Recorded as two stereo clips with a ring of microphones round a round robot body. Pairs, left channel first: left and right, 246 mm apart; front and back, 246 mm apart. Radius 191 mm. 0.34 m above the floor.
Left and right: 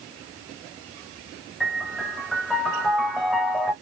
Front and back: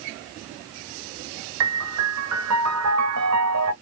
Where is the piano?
Straight behind, 0.7 m.